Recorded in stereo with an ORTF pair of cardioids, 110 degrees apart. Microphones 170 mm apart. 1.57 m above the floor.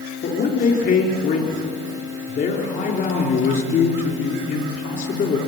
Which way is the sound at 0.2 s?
60° left.